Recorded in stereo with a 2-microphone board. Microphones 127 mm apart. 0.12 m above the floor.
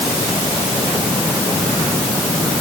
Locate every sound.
Only background noise.